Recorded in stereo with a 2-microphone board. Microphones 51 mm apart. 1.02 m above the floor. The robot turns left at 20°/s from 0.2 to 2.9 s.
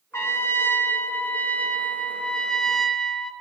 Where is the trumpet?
60° left, 1.2 m; by 3.3 s 5° left, 1.2 m.